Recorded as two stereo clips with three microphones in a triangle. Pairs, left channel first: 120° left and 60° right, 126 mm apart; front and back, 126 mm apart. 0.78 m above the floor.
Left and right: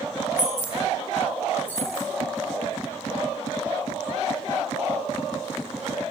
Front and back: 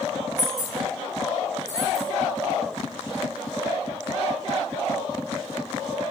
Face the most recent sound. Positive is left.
turn(degrees=165)